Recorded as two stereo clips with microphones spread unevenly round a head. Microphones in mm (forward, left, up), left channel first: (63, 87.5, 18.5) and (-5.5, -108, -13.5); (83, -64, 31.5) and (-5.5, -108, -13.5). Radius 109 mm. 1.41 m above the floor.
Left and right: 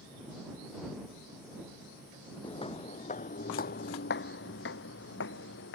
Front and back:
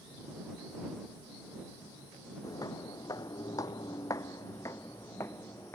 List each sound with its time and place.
2.4 s footsteps: 15° left; by 5.8 s 90° left